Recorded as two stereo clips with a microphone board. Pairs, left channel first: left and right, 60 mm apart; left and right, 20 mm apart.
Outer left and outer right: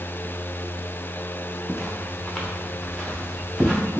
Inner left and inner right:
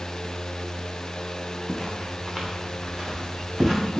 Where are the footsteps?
15° left (ahead or behind), 0.6 m; by 4.0 s centre (ahead or behind), 2.5 m.